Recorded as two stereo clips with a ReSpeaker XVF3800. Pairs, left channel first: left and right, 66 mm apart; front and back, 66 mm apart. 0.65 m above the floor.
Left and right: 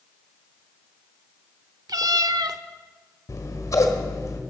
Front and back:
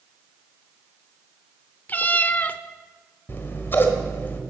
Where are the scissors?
55° left, 1.5 m.